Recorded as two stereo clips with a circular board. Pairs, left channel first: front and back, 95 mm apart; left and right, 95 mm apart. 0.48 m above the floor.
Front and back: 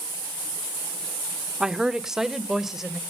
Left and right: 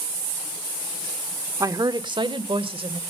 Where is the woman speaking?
100° right, 0.8 m; by 3.0 s 95° right, 1.7 m.